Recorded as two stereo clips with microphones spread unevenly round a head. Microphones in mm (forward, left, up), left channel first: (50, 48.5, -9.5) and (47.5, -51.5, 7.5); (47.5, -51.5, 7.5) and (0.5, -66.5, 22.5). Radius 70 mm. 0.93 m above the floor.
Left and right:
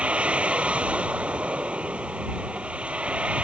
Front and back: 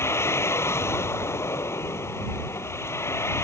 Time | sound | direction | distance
0.0 | a vehicle | 15° right | ?